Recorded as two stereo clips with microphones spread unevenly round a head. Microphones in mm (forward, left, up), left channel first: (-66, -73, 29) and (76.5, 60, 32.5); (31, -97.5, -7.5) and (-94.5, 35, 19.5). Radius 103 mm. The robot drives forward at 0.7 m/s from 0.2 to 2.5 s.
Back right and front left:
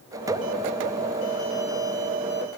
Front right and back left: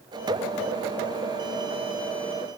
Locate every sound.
Only background noise.